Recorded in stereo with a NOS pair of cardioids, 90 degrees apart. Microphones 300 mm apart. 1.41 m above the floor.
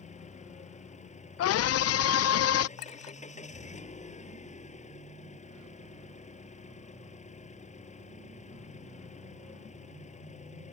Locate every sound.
0.0 s an engine running: 25° left
1.4 s a scream: 60° left
2.8 s a clink: 65° left